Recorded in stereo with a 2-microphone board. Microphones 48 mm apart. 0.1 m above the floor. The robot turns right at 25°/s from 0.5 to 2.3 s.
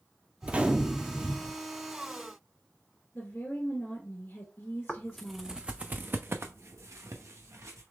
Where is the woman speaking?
40° left (ahead or behind), 1.4 m.